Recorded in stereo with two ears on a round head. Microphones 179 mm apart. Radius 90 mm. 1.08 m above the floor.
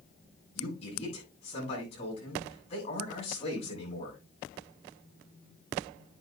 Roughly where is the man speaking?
Left.